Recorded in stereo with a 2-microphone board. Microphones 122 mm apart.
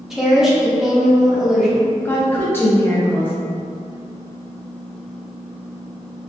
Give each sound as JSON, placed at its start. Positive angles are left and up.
{"t": 0.1, "sound": "a woman speaking", "side_deg": -5, "distance_m": 0.7}
{"t": 2.0, "sound": "a woman speaking", "side_deg": 15, "distance_m": 0.6}